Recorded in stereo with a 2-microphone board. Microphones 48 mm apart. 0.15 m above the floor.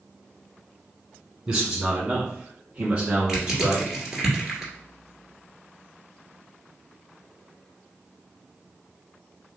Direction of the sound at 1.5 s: 15° right (ahead or behind).